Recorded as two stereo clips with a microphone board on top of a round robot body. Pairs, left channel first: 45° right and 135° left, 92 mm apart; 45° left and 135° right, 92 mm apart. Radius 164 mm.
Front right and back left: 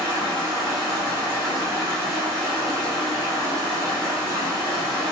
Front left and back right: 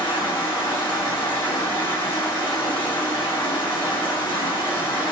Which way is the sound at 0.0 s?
Straight ahead.